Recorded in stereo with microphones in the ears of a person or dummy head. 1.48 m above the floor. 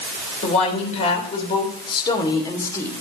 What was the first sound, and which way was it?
A woman speaking, 40° left (ahead or behind).